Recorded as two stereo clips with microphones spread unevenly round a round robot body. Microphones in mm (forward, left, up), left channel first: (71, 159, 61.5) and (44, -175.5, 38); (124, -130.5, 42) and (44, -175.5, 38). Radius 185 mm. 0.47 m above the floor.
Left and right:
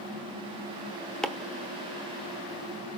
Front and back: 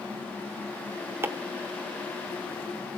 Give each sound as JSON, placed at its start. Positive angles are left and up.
{"t": 1.2, "sound": "chopping", "azimuth_deg": 180, "distance_m": 0.7}